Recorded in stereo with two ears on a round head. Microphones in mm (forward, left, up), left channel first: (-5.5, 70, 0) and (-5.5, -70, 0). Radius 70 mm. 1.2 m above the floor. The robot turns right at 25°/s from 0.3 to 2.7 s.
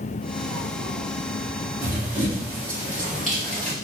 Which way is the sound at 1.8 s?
10° right (ahead or behind).